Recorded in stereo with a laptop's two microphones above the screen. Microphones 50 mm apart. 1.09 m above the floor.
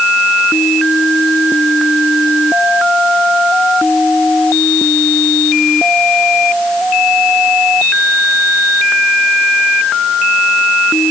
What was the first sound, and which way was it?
Only background noise.